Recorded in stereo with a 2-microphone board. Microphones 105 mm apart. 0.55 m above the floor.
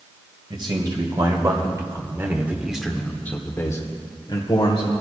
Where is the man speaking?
50° right (ahead or behind), 2.5 m; by 4.9 s 55° left (ahead or behind), 1.9 m.